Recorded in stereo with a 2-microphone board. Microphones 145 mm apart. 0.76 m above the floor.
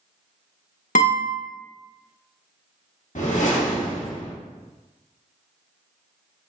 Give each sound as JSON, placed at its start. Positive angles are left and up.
{"t": 0.9, "sound": "a guitar", "side_deg": 60, "distance_m": 0.9}
{"t": 3.1, "sound": "a whoosh", "side_deg": 60, "distance_m": 0.9}